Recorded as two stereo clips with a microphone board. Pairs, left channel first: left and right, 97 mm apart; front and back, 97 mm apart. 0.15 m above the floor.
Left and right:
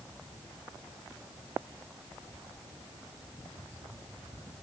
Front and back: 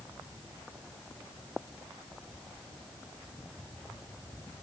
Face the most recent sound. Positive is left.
No sound to turn to.